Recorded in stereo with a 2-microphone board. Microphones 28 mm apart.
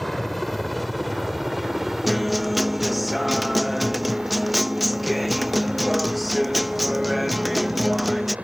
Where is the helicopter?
10° left (ahead or behind); by 8.4 s 55° right (ahead or behind).